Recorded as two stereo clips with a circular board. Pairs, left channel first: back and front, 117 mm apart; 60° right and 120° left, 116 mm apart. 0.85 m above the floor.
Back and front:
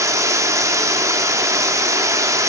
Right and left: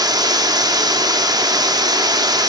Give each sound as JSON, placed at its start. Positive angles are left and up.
{"t": 0.0, "sound": "running water", "azimuth_deg": 65, "distance_m": 0.9}